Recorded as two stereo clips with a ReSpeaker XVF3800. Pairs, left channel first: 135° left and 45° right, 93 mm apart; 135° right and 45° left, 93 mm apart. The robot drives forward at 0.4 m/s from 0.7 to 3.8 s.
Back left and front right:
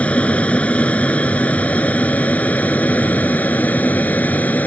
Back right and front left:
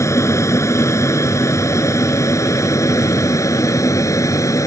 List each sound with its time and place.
0.0 s an aircraft: 160° right